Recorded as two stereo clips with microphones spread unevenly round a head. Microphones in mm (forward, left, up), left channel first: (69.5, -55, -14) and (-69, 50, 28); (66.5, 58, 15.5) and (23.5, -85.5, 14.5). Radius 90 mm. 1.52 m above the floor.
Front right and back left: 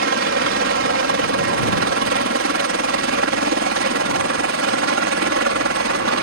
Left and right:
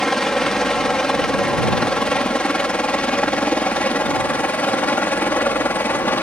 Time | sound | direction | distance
0.0 | a helicopter | 160° left | ?